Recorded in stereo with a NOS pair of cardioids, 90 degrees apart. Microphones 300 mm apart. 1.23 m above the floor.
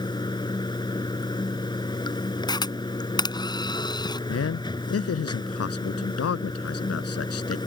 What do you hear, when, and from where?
0.0 s running water: 15° left
2.5 s a camera shutter: 15° left
4.3 s a man speaking: 50° left